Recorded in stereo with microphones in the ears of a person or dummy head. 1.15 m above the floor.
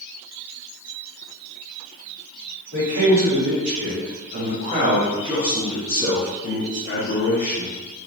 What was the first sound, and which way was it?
A man speaking, 65° right (ahead or behind).